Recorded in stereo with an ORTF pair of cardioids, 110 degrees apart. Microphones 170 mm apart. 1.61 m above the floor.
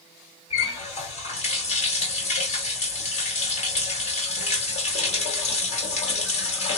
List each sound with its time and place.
0.5 s a running tap: 45° left, 1.8 m